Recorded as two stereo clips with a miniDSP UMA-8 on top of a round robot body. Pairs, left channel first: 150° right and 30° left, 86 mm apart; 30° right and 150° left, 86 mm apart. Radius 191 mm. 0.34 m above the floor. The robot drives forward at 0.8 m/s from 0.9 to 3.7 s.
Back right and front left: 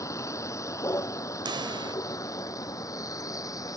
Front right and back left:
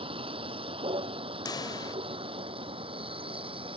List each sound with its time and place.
0.0 s a vehicle: 155° left; by 3.8 s 160° left
1.4 s a pop: 5° left